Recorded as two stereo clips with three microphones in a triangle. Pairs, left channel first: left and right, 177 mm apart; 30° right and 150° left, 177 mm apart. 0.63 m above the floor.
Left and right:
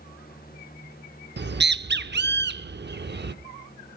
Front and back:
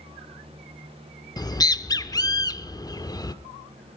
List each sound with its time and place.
1.4 s a bird: 100° right, 0.7 m